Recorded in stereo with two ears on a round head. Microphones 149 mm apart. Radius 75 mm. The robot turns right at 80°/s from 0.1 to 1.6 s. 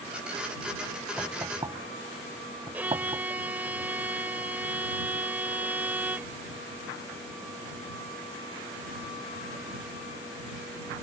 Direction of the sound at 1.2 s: 5° left (ahead or behind).